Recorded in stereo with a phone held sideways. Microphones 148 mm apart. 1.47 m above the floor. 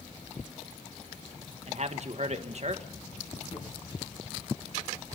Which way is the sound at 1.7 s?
50° right (ahead or behind).